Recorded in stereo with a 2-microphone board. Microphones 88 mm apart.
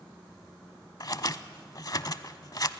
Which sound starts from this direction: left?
Scissors, at 1.0 s.